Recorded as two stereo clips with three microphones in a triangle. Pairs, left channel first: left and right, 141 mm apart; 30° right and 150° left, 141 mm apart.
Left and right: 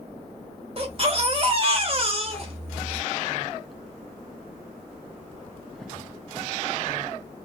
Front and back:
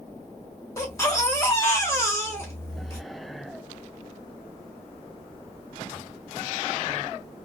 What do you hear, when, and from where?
0.8 s a baby crying: 90° right, 0.8 m